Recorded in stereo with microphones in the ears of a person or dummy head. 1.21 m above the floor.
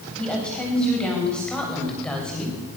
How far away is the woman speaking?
About 8.5 m.